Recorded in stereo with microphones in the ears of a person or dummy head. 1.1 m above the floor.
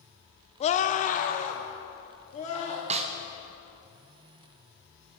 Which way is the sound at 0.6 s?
25° left (ahead or behind).